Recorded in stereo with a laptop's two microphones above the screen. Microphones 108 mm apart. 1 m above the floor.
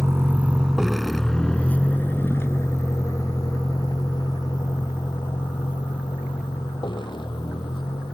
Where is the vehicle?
25° right (ahead or behind); by 8.1 s 50° left (ahead or behind).